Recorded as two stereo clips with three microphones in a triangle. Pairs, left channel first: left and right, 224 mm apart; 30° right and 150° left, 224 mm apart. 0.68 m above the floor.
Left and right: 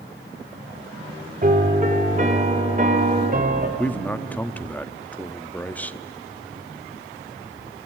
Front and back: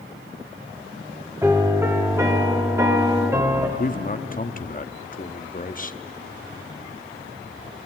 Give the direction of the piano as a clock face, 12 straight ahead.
4 o'clock.